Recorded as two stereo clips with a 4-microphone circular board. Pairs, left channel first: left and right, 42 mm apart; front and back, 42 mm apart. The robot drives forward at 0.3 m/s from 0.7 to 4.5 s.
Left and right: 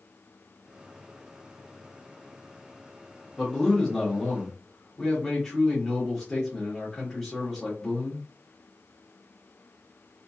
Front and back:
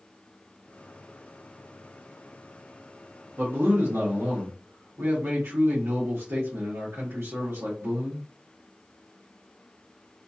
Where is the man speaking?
170° left, 1.1 m.